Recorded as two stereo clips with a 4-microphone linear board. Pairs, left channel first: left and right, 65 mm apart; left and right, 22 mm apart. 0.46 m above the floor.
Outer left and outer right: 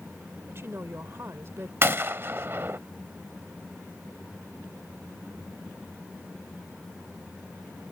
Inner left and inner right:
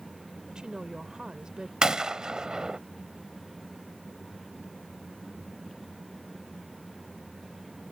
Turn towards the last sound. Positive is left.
turn(degrees=-40)  # may be behind; listen again after turning